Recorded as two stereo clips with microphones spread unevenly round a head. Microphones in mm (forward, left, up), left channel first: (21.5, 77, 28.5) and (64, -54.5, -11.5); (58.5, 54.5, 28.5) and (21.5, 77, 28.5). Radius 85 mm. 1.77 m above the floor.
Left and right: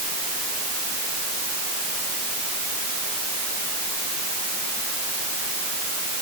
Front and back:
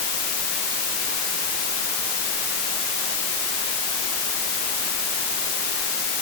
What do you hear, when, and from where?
Only background noise.